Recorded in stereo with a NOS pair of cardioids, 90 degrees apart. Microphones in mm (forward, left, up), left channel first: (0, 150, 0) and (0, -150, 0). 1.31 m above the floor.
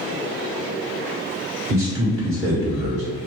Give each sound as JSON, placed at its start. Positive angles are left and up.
{"t": 1.7, "sound": "a man speaking", "azimuth_deg": -50, "distance_m": 1.6}